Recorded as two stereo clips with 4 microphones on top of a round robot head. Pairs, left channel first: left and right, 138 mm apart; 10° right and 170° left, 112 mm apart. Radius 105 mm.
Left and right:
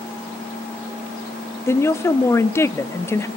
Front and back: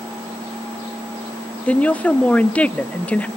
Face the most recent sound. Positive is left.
turn(degrees=55)